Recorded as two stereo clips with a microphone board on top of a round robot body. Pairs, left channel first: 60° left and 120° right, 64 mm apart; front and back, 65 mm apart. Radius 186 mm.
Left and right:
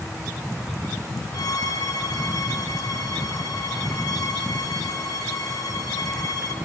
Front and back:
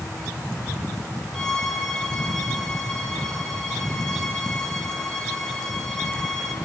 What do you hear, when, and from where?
1.3 s a violin: 85° left, 1.2 m